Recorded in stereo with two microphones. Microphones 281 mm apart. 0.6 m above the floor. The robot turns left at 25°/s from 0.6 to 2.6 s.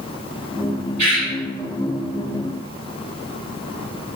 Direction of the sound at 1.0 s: 75° right (ahead or behind).